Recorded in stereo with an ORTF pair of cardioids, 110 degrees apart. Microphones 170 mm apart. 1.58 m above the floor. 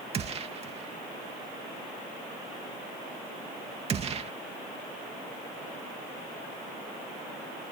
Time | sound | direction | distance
0.1 | a gunshot | 35° right | ?